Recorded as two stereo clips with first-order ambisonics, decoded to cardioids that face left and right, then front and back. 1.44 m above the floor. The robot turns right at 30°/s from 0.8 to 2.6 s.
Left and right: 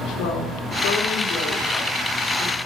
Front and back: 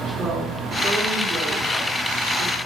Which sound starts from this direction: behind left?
A woman speaking, at 0.2 s.